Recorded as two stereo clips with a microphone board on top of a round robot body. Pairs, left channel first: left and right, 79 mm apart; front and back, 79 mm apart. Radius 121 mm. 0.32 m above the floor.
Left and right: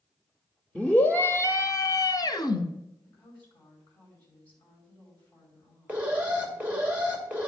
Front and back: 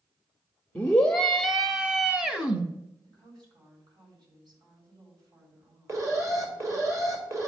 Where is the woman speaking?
160° left, 4.5 m.